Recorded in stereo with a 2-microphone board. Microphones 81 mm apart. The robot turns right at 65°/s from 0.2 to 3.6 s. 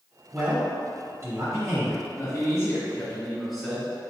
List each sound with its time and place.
0.3 s a man speaking: 10° right (ahead or behind), 1.3 m; by 2.0 s 25° right (ahead or behind), 1.3 m
2.2 s a man speaking: 95° left, 1.5 m; by 3.9 s 175° right, 1.5 m